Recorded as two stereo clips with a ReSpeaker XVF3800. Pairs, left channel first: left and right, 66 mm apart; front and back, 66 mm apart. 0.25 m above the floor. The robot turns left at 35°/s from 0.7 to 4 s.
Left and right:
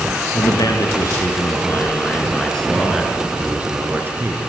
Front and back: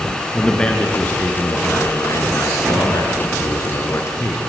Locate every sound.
0.3 s a man speaking: 75° left, 3.5 m; by 4.4 s 40° right, 3.5 m